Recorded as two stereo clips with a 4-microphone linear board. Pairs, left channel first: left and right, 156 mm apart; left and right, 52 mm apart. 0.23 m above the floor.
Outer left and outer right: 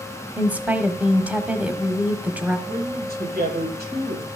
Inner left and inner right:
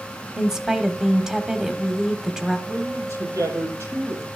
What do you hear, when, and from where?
0.4 s a woman speaking: 10° right (ahead or behind), 1.3 m
2.7 s a man speaking: 75° right (ahead or behind), 8.5 m